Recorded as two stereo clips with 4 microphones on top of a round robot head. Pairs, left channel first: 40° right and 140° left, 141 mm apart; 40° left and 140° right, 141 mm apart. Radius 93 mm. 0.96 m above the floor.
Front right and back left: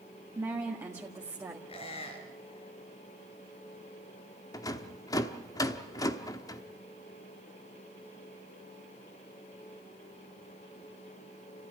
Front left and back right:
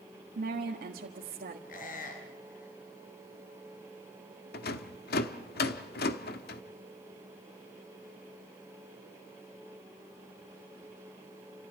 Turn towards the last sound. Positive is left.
turn(degrees=25)